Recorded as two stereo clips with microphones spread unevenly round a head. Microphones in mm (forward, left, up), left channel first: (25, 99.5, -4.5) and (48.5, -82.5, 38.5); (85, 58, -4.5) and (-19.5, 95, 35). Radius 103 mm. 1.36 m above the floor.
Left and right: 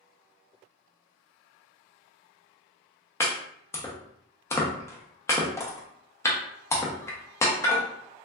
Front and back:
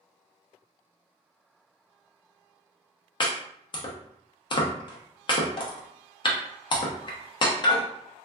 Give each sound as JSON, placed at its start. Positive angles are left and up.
{"t": 3.2, "sound": "chopping", "azimuth_deg": 10, "distance_m": 0.6}